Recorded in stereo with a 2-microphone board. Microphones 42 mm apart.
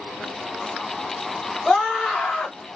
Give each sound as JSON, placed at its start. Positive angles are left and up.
{"t": 1.6, "sound": "a scream", "side_deg": 10, "distance_m": 1.5}